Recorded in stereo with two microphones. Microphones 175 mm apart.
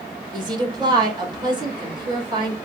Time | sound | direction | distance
0.3 | a woman speaking | 30° right (ahead or behind) | 2 m